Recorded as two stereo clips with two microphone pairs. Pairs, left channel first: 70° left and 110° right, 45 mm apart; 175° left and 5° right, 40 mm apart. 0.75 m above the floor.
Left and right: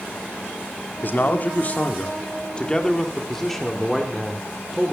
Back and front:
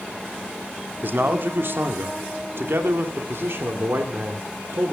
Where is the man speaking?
35° left, 1.8 m; by 4.9 s 30° right, 2.5 m.